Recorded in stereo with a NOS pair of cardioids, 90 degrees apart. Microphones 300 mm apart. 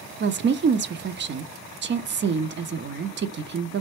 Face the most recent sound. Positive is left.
turn(degrees=-40)